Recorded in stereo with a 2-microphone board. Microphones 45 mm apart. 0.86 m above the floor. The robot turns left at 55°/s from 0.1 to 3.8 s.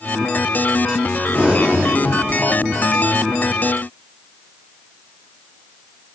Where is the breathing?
20° right, 3 m; by 3.4 s 140° right, 3 m.